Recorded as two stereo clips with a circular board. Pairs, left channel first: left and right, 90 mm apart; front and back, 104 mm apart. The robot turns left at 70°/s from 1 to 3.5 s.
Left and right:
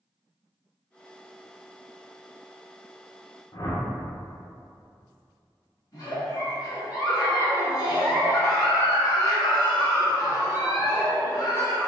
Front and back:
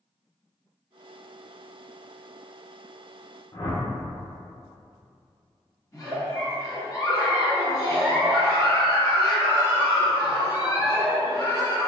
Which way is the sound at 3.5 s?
45° left.